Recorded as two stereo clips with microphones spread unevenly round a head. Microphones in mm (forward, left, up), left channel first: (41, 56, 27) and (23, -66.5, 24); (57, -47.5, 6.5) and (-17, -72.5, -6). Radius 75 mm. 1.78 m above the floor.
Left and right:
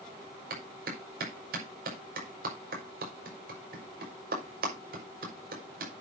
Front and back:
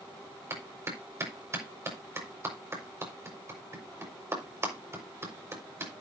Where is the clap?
105° right, 5.5 m.